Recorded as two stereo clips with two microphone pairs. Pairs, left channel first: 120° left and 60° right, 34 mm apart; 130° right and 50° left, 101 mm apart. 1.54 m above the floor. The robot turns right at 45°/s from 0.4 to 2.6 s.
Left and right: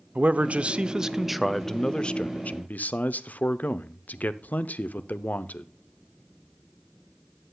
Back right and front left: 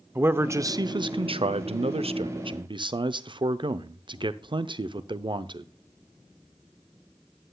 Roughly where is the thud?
No thud in this recording.